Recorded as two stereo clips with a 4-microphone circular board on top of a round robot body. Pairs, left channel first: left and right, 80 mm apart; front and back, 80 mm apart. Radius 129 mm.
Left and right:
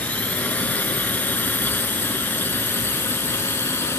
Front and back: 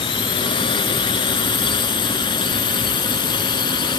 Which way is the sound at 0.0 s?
20° left.